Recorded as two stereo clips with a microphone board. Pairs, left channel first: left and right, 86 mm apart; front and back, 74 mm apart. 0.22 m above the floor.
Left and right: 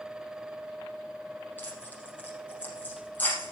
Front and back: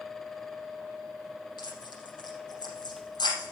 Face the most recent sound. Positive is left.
turn(degrees=20)